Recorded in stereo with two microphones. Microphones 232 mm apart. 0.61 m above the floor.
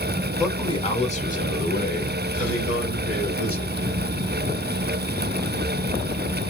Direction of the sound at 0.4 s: 15° left (ahead or behind).